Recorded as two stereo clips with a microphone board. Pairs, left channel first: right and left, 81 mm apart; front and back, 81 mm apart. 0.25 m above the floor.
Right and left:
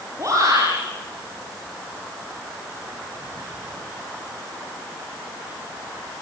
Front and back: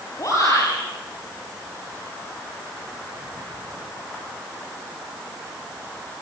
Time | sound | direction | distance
0.2 | a shout | 45° left | 7 m